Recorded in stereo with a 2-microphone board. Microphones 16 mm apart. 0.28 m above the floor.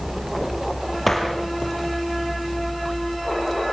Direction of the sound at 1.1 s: 10° left (ahead or behind).